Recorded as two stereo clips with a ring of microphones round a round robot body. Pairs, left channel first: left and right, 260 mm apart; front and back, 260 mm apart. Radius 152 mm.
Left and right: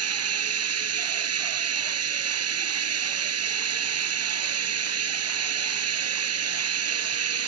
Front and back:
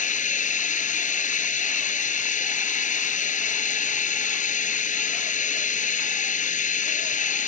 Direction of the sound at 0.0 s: 60° right.